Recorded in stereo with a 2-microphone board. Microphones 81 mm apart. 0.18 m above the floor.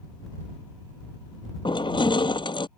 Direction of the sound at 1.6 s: 85° left.